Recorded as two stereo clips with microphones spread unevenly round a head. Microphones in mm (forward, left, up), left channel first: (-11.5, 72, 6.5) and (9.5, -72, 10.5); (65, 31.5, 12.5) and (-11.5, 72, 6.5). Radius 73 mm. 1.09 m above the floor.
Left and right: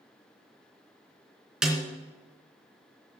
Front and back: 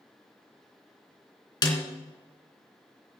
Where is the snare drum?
5° left, 3 m.